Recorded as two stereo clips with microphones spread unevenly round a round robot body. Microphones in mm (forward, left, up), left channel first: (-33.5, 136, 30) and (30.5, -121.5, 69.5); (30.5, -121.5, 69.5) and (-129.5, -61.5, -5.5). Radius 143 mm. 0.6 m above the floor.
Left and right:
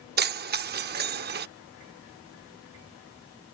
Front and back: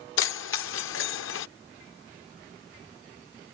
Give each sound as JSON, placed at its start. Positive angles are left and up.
{"t": 0.2, "sound": "keys jangling", "azimuth_deg": -20}